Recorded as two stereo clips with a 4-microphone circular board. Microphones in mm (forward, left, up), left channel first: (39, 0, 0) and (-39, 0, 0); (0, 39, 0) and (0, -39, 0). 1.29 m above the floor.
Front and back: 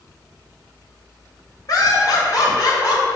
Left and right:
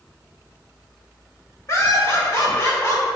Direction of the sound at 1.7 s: 40° left.